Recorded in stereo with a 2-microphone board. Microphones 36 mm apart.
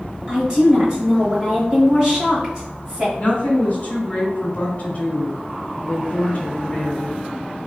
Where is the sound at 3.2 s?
30° left (ahead or behind), 1.5 m.